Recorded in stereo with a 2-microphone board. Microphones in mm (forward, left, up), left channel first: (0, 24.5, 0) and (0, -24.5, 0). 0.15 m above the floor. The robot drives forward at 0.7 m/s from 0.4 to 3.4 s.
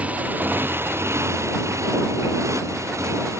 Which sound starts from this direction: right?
A motorcycle, at 0.0 s.